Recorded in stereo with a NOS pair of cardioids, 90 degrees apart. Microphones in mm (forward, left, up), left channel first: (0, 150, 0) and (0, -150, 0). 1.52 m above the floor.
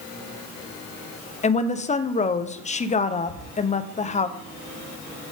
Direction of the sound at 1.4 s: 25° left.